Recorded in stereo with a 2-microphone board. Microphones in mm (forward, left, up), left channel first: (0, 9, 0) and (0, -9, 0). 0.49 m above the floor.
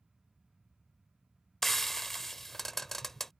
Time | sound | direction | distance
1.6 | frying | 15° left (ahead or behind) | ?